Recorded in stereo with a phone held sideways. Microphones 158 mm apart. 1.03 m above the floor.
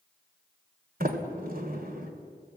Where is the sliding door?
65° right (ahead or behind), 2.5 m.